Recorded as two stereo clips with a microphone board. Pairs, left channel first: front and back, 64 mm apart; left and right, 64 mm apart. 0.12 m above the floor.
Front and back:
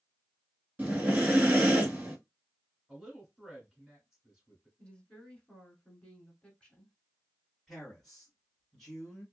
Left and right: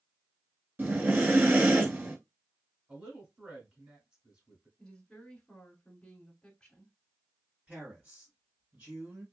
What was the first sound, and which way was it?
Breathing, 125° right.